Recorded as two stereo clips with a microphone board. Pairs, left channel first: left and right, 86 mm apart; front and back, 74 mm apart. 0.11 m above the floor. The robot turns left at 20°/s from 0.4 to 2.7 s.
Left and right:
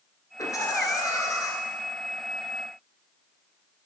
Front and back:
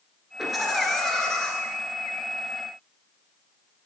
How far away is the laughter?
About 1.5 m.